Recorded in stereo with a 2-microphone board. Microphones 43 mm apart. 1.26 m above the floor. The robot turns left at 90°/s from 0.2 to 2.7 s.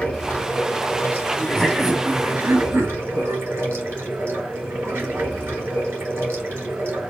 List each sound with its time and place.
0.0 s running water: 150° left, 3 m; by 7.1 s 75° right, 3 m
1.4 s laughter: 30° left, 1.1 m; by 3.7 s 85° right, 1.1 m